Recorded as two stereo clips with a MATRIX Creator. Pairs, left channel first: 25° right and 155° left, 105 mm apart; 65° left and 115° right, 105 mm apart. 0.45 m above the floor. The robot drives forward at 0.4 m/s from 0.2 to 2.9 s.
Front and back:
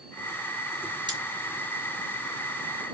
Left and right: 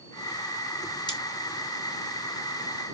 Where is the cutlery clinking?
115° left, 1.9 m; by 1.2 s 120° left, 1.9 m.